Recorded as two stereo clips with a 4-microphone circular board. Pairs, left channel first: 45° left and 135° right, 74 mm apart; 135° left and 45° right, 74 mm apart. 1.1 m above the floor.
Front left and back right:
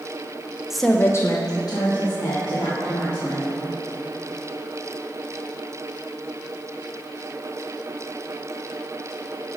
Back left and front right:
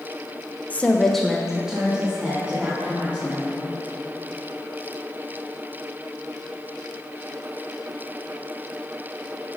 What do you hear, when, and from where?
0.7 s a woman speaking: 155° left, 0.6 m; by 3.6 s 30° left, 3 m